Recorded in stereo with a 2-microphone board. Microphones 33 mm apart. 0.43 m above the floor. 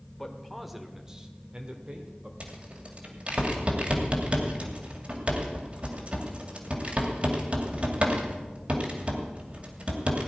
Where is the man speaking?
5° left (ahead or behind), 1.5 m; by 2.3 s 35° right (ahead or behind), 1.8 m.